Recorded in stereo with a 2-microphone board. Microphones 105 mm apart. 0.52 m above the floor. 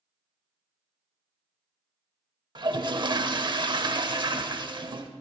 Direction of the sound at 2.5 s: 45° right (ahead or behind).